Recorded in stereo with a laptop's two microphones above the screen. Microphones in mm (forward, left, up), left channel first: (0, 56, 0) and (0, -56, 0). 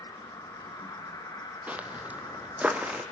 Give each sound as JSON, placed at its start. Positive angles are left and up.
{"t": 0.0, "sound": "an insect", "side_deg": 35, "distance_m": 5.5}
{"t": 1.7, "sound": "footsteps", "side_deg": -15, "distance_m": 1.8}